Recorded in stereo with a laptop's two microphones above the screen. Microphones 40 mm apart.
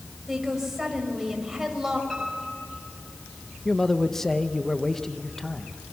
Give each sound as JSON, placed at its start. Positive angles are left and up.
{"t": 0.3, "sound": "a woman speaking", "side_deg": -10, "distance_m": 5.5}
{"t": 2.1, "sound": "a piano", "side_deg": 5, "distance_m": 6.5}
{"t": 3.6, "sound": "a man speaking", "side_deg": 10, "distance_m": 0.9}